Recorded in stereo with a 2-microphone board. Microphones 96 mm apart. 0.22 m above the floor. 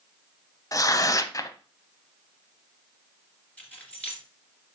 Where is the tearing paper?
40° left (ahead or behind), 0.5 m.